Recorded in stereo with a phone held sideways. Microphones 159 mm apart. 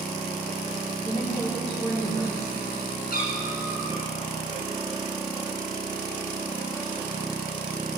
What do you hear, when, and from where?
1.0 s a woman speaking: 40° left (ahead or behind), 5 m
3.1 s a cat meowing: 70° left (ahead or behind), 5 m